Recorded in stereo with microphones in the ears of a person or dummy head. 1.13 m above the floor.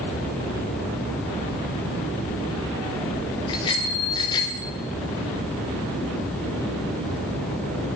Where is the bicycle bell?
25° left (ahead or behind), 3 m.